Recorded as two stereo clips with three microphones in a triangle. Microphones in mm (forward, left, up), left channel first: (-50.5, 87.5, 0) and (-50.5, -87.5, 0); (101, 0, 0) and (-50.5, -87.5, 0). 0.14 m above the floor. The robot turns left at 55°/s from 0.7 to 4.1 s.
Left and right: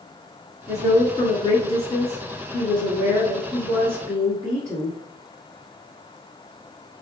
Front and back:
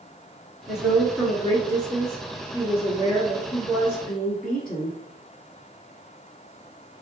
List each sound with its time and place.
0.7 s a woman speaking: 140° left, 1.2 m; by 5.0 s 50° right, 1.2 m